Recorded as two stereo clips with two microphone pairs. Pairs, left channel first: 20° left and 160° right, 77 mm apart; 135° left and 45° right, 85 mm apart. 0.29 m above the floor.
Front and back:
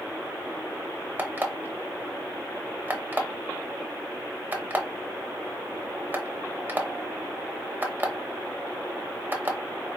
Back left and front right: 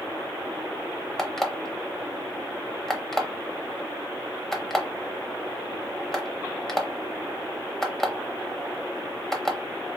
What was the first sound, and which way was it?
An alarm clock, 145° right.